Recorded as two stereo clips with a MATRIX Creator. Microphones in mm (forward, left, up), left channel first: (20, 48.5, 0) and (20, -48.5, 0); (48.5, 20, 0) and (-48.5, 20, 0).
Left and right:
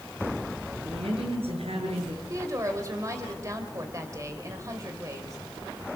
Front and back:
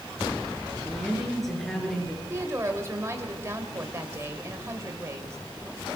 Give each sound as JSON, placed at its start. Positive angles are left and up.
{"t": 0.8, "sound": "a woman speaking", "azimuth_deg": -85, "distance_m": 7.0}
{"t": 2.3, "sound": "a woman speaking", "azimuth_deg": -130, "distance_m": 1.9}